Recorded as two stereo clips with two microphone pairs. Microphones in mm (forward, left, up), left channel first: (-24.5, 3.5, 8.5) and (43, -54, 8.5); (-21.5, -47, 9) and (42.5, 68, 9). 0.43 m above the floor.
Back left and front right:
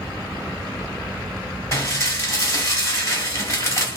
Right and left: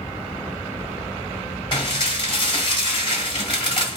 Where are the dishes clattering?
170° right, 1.5 m.